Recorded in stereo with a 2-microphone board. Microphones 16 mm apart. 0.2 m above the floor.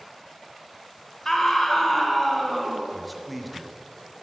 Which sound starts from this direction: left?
A scream, at 1.2 s.